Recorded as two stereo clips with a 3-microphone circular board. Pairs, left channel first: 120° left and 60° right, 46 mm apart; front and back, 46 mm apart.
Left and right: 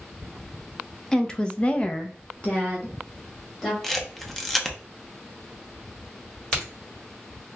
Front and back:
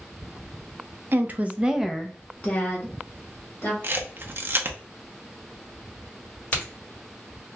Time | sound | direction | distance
1.1 | a woman speaking | 165° right | 0.6 m
3.8 | a camera shutter | 155° right | 0.6 m
6.5 | a crack | 60° left | 1.5 m